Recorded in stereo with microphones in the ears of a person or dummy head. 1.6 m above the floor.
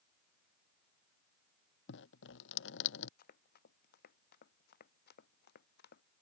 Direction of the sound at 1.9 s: 75° left (ahead or behind).